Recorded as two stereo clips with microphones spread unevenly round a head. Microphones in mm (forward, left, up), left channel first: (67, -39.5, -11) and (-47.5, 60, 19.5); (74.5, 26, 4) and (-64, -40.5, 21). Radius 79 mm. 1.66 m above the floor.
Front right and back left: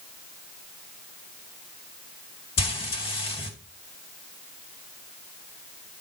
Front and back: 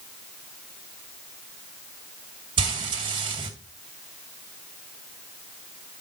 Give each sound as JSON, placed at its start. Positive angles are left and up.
{"t": 2.6, "sound": "frying", "azimuth_deg": -100, "distance_m": 2.0}